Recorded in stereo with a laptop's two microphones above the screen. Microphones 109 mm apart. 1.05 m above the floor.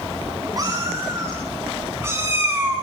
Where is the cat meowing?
35° right (ahead or behind), 9 m; by 2.8 s 15° right (ahead or behind), 6.5 m.